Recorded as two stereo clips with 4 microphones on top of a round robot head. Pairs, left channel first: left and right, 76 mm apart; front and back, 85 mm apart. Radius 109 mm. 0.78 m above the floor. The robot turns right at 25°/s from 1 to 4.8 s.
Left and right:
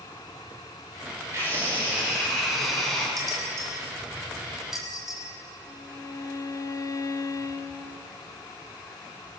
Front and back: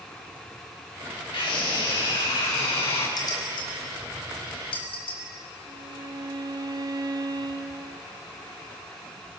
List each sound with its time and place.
1.3 s a scream: 35° right, 8.5 m; by 3.1 s 5° left, 8.5 m
3.2 s a bell: 45° right, 4 m; by 5.2 s 5° right, 4 m
5.7 s a violin: 135° left, 1.2 m